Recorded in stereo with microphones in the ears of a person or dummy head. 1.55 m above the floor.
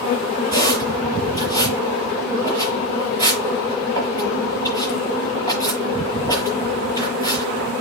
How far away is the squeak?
About 5.5 m.